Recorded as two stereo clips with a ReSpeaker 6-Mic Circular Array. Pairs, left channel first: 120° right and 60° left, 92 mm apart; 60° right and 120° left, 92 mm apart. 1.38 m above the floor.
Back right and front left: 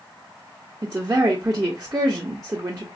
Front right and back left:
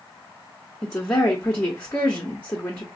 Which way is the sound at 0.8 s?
5° left.